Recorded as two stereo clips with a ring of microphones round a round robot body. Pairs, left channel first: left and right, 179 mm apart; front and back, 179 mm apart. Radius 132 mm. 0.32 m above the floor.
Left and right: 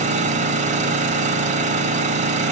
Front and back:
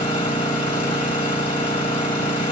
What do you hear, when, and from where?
0.0 s an engine running: 55° right, 1.8 m